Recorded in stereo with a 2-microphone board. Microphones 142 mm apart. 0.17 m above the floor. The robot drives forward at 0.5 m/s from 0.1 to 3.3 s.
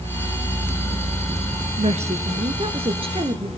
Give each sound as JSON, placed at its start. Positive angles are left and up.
{"t": 1.8, "sound": "a woman speaking", "side_deg": -55, "distance_m": 2.0}